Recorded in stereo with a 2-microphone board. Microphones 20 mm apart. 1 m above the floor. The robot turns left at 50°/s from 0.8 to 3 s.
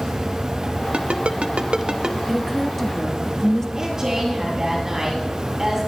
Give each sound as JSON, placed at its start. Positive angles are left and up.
{"t": 0.9, "sound": "a ringtone", "side_deg": -80, "distance_m": 0.9}
{"t": 2.3, "sound": "a woman speaking", "azimuth_deg": -165, "distance_m": 1.7}
{"t": 3.8, "sound": "a woman speaking", "side_deg": -25, "distance_m": 8.0}